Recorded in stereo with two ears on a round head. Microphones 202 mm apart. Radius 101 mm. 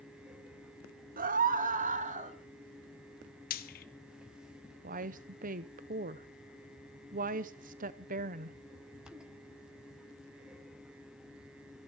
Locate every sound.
1.2 s a scream: 40° right (ahead or behind), 1.5 m; by 2.4 s 35° right (ahead or behind), 2.5 m
3.5 s frying: 40° left (ahead or behind), 1.3 m
4.8 s a woman speaking: 35° right (ahead or behind), 0.7 m